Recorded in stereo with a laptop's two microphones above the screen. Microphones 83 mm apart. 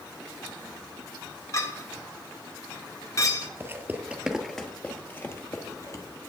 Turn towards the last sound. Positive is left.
turn(degrees=40)  # may be behind; listen again after turning